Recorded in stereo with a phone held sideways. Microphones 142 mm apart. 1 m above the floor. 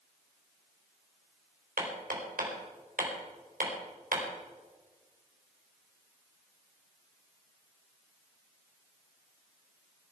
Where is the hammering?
85° right, 4 m.